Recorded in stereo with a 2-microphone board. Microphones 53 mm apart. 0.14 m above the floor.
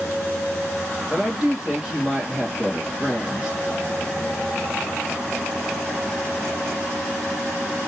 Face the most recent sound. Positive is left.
turn(degrees=-15)  # may be behind; listen again after turning